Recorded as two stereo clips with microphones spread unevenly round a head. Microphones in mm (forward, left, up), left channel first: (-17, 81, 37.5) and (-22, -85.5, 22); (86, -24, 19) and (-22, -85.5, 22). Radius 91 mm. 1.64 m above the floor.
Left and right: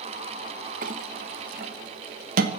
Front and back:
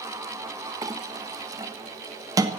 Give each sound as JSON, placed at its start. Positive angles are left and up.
{"t": 0.8, "sound": "a clink", "azimuth_deg": -105, "distance_m": 1.0}